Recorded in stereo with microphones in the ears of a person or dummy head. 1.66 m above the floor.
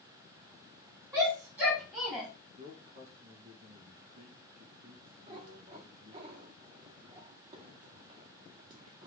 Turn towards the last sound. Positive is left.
turn(degrees=-30)  # may be behind; listen again after turning